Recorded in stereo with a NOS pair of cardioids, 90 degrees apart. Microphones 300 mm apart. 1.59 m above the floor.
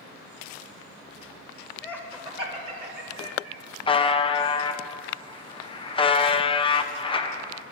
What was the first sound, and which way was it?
Laughter, 10° left.